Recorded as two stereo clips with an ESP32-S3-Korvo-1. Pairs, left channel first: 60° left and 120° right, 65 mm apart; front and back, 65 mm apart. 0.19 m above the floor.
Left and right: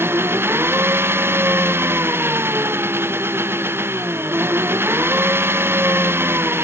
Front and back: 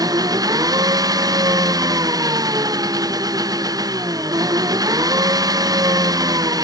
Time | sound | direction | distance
0.0 | an engine running | 170° right | ?